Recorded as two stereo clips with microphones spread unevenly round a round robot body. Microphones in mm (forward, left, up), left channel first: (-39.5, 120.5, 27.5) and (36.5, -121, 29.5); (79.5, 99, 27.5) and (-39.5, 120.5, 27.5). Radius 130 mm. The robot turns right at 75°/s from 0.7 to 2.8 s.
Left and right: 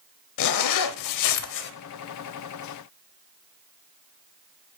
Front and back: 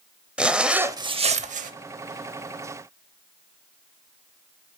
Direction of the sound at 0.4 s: 85° left.